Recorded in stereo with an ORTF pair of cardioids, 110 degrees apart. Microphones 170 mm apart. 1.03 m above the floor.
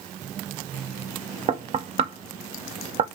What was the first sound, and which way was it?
Knocking, 40° right.